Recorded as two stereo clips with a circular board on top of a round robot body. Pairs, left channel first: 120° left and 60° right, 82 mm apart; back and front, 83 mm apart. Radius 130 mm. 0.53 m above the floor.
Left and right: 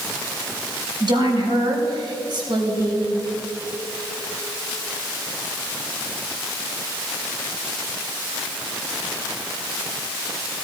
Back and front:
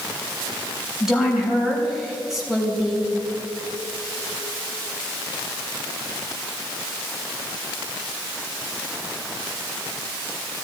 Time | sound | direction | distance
1.0 | a woman speaking | 85° right | 4 m